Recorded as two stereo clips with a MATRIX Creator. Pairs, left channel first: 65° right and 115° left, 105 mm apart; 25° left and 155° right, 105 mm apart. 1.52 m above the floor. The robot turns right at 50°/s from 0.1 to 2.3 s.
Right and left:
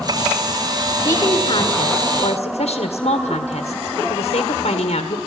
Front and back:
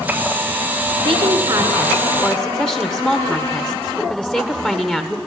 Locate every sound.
1.1 s a woman speaking: 120° right, 1.5 m; by 5.2 s 55° right, 1.5 m